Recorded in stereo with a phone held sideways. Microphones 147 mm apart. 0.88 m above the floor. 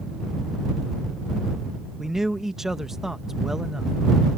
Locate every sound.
2.0 s a man speaking: 5° right (ahead or behind)